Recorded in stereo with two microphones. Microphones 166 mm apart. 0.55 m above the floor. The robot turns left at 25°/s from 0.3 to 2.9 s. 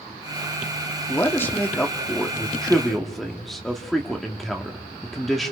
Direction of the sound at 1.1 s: 15° left (ahead or behind).